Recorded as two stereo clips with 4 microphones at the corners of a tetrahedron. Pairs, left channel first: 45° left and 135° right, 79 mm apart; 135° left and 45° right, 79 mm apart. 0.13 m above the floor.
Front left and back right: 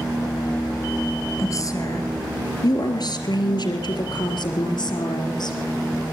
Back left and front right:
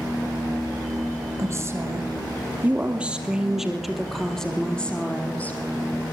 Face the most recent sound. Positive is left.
turn(degrees=65)